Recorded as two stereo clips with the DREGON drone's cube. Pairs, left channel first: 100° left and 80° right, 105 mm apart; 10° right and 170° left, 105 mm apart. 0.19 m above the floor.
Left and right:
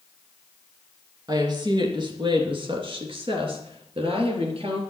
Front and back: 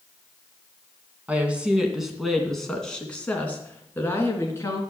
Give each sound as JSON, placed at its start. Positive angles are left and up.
{"t": 1.3, "sound": "a woman speaking", "azimuth_deg": -115, "distance_m": 2.5}